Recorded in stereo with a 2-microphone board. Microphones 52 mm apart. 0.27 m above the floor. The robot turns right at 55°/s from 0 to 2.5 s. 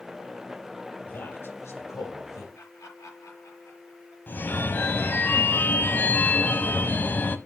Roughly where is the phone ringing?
Left.